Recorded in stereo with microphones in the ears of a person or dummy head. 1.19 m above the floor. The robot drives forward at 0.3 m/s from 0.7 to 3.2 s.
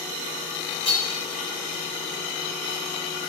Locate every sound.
0.8 s hammering: 25° left (ahead or behind), 2.5 m